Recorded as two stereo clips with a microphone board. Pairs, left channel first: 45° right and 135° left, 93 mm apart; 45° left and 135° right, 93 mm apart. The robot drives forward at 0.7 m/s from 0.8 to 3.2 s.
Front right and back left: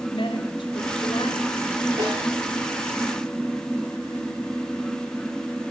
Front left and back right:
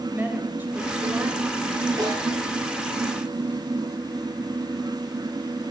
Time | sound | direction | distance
0.1 | a woman speaking | 65° right | 3 m
2.0 | a snare drum | 175° left | 7.5 m